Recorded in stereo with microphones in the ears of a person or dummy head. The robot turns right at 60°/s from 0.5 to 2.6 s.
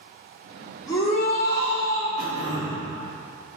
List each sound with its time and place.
0.9 s a shout: 25° left, 2.5 m; by 2.1 s 95° left, 2.5 m
2.2 s throat clearing: 45° left (ahead or behind), 2 m; by 2.9 s 65° left (ahead or behind), 2 m